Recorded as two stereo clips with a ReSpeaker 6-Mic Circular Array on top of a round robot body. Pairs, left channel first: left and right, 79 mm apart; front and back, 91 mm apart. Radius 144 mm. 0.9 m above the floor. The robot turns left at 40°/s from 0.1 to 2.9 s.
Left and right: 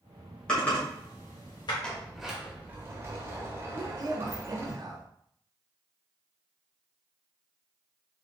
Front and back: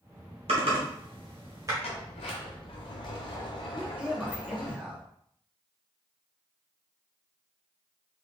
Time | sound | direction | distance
0.5 | typing on a keyboard | 175° left | 1.5 m
1.8 | a sliding door | 15° left | 0.7 m
3.8 | a man speaking | 100° right | 1.3 m